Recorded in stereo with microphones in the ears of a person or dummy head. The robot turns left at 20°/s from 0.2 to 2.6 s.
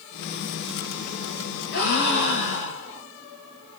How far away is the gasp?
About 1.7 m.